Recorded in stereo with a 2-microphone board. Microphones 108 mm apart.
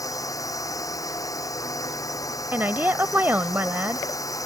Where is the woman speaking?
20° right (ahead or behind).